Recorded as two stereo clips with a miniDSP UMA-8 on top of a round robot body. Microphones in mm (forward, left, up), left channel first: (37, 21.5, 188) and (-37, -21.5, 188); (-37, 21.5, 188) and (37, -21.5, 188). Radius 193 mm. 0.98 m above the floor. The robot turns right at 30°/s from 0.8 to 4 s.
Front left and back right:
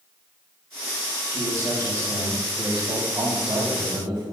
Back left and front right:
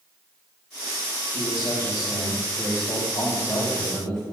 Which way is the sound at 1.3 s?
160° left.